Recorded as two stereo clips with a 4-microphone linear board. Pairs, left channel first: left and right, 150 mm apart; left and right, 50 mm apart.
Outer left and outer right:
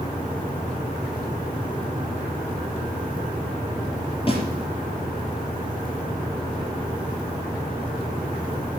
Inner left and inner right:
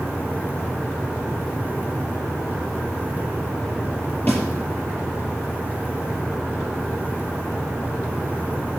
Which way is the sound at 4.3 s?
35° left (ahead or behind).